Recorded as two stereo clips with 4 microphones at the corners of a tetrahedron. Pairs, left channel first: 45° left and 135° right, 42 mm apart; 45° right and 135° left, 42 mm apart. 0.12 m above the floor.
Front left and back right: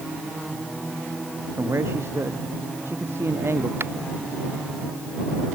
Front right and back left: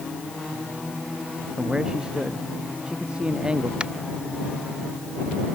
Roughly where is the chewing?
I don't hear chewing.